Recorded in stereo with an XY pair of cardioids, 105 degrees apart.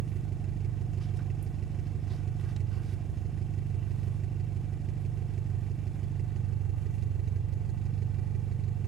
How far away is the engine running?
About 0.8 m.